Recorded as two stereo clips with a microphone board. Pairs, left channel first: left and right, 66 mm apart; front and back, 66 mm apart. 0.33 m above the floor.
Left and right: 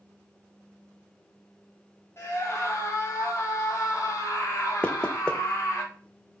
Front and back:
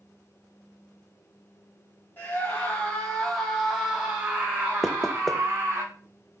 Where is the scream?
55° left, 2 m; by 5.8 s 130° left, 3 m.